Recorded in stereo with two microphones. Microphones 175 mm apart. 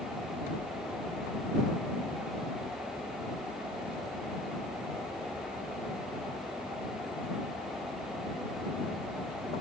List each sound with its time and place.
Only background noise.